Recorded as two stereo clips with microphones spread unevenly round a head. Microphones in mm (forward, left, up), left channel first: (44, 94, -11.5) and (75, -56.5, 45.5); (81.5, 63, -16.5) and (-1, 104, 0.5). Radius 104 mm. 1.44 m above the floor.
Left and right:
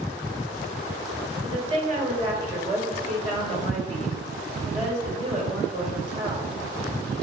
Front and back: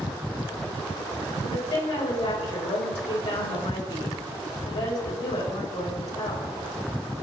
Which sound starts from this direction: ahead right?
A woman speaking, at 1.4 s.